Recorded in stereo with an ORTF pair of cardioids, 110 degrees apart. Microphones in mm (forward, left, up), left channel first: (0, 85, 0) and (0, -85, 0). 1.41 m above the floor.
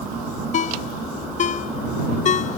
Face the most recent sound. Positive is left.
turn(degrees=45)